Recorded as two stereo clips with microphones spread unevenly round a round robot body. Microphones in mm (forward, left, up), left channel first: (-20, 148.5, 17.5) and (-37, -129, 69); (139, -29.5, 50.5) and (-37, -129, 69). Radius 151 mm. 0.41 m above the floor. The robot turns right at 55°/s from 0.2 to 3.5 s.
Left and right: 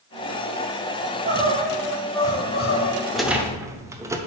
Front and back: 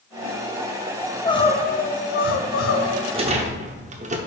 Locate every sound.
1.0 s crying: 55° right, 0.9 m; by 3.0 s 55° left, 0.9 m
3.1 s a rattle: 155° left, 0.8 m; by 4.2 s straight behind, 0.8 m